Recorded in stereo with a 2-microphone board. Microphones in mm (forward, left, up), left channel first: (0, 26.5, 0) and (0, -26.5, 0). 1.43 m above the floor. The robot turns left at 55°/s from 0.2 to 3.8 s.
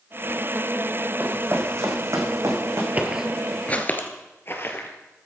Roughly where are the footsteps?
Right.